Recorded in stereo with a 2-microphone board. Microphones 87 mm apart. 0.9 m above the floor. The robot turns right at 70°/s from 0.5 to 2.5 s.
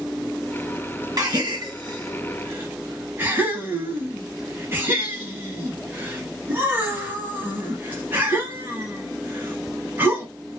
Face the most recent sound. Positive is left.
turn(degrees=-25)  # may be behind; listen again after turning